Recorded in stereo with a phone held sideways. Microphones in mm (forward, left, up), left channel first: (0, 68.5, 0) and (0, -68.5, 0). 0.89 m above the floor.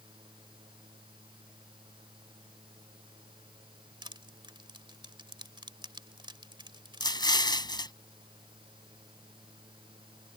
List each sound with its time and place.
0.0 s a fan: 35° right (ahead or behind)
4.0 s crushing: 35° right (ahead or behind)
7.0 s an explosion: 30° left (ahead or behind)